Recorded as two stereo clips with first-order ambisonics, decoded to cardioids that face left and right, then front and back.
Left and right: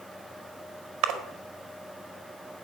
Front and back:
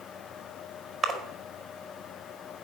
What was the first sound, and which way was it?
A splash, 105° right.